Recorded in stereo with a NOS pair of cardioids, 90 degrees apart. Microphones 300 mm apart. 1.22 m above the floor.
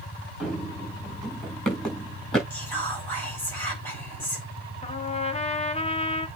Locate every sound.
0.4 s running footsteps: straight ahead, 5 m
2.5 s whispering: 5° left, 6 m
4.8 s a trumpet: 20° left, 1.4 m